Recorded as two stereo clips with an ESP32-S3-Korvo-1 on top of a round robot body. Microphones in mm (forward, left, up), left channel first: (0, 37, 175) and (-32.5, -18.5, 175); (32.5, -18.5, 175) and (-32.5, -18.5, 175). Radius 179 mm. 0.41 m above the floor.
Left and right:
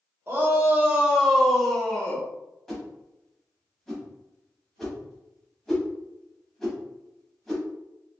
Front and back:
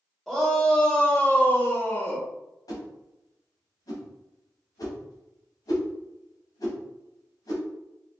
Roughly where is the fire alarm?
I don't hear a fire alarm.